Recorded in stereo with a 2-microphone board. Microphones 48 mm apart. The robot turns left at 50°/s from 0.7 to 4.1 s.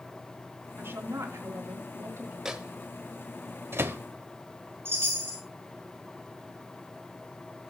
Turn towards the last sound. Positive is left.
turn(degrees=-50)  # may be behind; listen again after turning